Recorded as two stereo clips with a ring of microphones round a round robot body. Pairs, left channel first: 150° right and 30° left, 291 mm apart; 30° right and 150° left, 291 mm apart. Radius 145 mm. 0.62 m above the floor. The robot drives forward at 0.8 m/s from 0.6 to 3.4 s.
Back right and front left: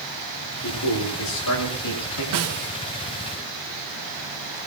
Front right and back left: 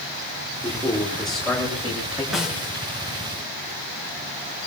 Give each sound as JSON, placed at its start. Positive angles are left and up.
{"t": 0.6, "sound": "a man speaking", "azimuth_deg": -115, "distance_m": 9.0}
{"t": 2.3, "sound": "a snare drum", "azimuth_deg": 60, "distance_m": 2.5}